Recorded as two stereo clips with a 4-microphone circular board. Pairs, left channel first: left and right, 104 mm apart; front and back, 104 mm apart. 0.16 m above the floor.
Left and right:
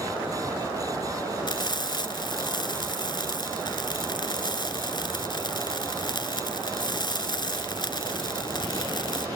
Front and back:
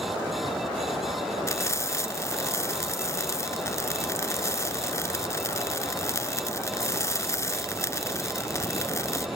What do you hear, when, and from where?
1.5 s frying: 55° left, 0.8 m